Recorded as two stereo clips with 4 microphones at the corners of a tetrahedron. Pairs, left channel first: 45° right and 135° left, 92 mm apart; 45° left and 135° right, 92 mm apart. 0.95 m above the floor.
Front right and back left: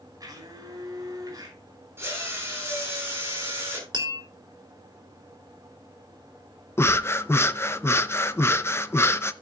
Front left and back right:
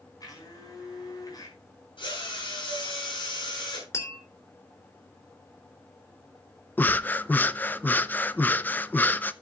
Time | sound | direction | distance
0.2 | a blender | 90° left | 5.5 m
2.0 | a drill | 70° left | 7.5 m
3.9 | tapping | 100° left | 3 m
6.8 | breathing | 10° right | 0.5 m